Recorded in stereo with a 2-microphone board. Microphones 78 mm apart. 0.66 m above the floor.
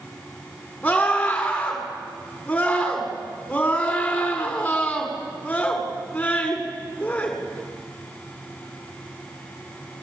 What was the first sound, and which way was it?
A scream, 15° left (ahead or behind).